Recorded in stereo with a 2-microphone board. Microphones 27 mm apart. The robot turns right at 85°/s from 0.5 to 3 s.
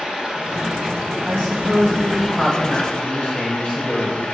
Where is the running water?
150° right, 2.5 m; by 4.3 s 60° left, 2.5 m.